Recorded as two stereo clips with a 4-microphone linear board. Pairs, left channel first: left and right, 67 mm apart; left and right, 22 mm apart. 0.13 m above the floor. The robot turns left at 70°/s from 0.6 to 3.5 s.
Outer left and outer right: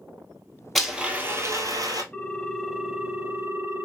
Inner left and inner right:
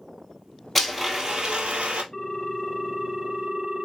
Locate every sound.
0.8 s a blender: 5° left, 1.2 m; by 2.0 s 85° right, 1.2 m
2.1 s a ringtone: 30° left, 0.7 m; by 3.9 s 65° right, 0.7 m